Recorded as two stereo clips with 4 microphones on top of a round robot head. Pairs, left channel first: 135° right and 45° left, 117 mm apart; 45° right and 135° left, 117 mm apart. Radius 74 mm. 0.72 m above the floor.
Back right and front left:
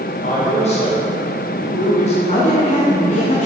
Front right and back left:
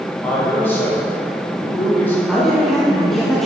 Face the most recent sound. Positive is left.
turn(degrees=-135)